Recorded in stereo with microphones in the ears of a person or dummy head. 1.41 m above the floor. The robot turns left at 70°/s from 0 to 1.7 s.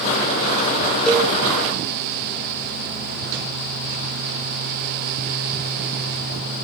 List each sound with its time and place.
1.1 s a cowbell: 5° left (ahead or behind), 1.0 m; by 1.3 s 20° left (ahead or behind), 1.0 m